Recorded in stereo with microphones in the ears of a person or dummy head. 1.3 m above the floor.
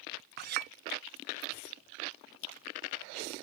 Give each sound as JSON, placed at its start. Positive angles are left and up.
{"t": 0.4, "sound": "a clink", "side_deg": -40}